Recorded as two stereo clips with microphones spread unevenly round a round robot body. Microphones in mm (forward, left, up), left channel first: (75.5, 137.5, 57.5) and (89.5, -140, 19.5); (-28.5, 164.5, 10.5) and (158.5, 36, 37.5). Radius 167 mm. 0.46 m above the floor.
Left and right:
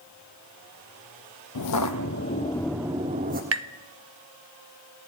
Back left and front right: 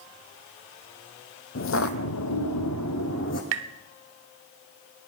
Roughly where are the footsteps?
Behind left.